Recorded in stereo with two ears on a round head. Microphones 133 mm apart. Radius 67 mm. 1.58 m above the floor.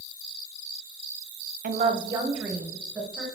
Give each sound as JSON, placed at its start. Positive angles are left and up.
{"t": 1.6, "sound": "a woman speaking", "side_deg": -55, "distance_m": 0.7}